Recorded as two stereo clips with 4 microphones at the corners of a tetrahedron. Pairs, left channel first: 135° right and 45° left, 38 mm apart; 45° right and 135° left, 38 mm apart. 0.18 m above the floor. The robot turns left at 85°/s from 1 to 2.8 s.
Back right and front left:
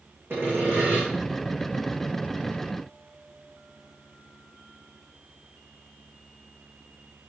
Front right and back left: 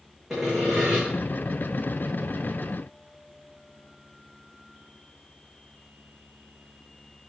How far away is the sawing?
About 5 m.